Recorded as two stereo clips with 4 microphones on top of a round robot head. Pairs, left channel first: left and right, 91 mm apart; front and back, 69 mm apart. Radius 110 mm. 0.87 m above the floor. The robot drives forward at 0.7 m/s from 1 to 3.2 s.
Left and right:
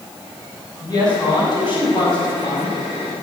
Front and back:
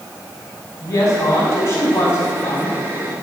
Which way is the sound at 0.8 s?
50° left.